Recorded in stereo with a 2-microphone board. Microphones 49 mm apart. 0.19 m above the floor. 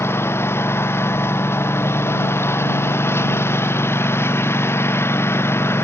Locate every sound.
0.0 s a lawn mower: 60° left (ahead or behind)